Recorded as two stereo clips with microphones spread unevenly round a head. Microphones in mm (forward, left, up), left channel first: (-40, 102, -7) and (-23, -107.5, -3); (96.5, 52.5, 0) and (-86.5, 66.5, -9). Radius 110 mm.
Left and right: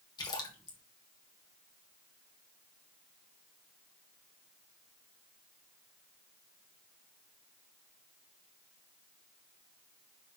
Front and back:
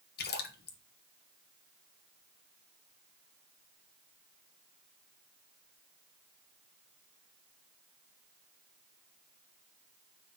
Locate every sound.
0.2 s a splash: 25° left, 1.2 m